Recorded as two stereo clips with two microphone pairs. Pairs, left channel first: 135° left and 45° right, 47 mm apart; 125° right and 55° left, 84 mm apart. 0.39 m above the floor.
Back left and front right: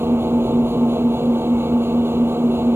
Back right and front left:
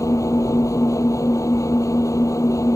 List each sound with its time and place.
0.0 s an engine running: 75° right